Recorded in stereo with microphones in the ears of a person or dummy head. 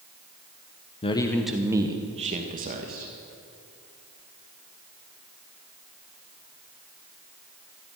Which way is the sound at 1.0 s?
25° left (ahead or behind).